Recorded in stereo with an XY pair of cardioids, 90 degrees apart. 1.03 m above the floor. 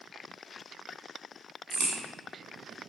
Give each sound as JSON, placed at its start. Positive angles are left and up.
{"t": 1.7, "sound": "a crack", "azimuth_deg": -65, "distance_m": 1.2}